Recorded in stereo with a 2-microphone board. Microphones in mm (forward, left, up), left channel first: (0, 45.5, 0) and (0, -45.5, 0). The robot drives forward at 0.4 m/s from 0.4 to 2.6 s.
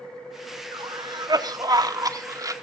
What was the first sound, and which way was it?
A cough, 50° right (ahead or behind).